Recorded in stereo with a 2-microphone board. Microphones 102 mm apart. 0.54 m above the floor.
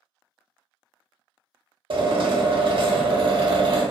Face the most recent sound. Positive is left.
turn(degrees=-60)  # may be behind; listen again after turning